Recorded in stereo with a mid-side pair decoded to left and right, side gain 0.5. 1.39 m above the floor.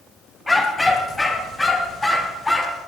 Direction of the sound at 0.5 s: 10° left.